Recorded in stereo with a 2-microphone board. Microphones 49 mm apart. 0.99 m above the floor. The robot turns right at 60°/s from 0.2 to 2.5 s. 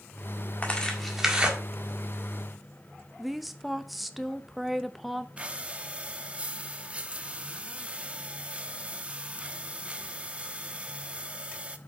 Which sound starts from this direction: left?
Tearing paper, at 0.6 s.